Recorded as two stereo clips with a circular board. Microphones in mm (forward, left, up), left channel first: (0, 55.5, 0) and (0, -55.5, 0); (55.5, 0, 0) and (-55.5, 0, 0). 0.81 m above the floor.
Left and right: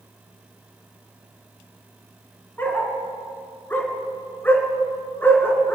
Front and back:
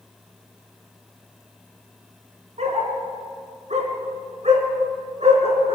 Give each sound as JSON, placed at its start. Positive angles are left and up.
{"t": 2.6, "sound": "a dog barking", "azimuth_deg": 165, "distance_m": 3.0}